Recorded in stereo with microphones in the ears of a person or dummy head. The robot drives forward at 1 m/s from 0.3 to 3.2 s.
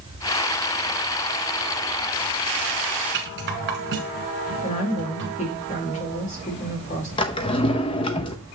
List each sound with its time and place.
3.1 s a rattle: 55° right (ahead or behind), 1.8 m
4.6 s a woman speaking: 30° left (ahead or behind), 2.5 m
7.2 s a drawer: 30° left (ahead or behind), 0.7 m